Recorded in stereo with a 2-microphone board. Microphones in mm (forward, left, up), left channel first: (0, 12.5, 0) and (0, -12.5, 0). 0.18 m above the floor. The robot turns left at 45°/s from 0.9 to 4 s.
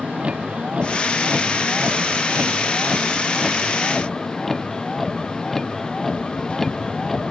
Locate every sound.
0.0 s a vehicle: 50° right; by 7.3 s 170° left